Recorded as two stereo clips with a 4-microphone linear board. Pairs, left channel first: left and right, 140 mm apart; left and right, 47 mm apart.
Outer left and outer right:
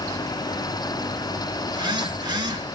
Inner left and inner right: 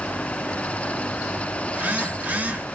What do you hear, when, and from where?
1.7 s a phone buzzing: 30° right (ahead or behind), 0.7 m